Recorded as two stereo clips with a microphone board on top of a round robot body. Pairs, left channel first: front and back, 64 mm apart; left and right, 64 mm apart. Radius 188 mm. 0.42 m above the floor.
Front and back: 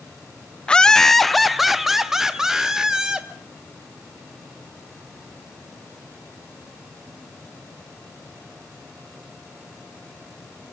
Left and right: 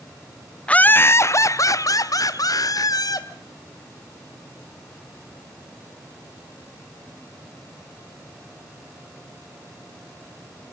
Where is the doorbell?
No doorbell in this recording.